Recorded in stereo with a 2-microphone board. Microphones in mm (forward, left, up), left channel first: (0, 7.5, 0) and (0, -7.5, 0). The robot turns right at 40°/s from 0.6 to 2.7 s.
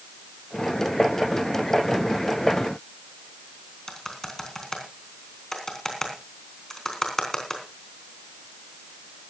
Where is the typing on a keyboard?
35° left (ahead or behind), 3.5 m.